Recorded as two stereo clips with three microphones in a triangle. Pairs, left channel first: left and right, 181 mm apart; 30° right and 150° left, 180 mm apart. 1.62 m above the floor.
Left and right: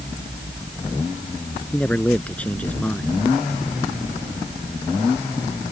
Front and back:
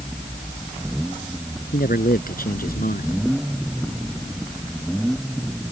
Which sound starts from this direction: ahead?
A man speaking, at 1.7 s.